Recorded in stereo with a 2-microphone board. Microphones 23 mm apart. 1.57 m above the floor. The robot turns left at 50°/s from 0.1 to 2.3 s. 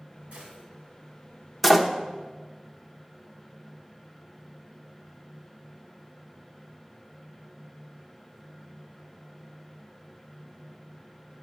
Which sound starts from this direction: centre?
A door slam, at 1.6 s.